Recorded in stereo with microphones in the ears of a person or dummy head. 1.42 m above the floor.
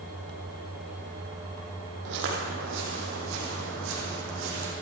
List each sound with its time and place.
2.0 s footsteps: 65° right (ahead or behind), 4 m; by 4.7 s 75° right (ahead or behind), 5.5 m